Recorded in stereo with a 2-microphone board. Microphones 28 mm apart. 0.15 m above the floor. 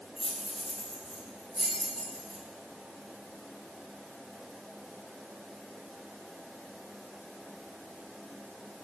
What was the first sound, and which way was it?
Keys jangling, 20° left (ahead or behind).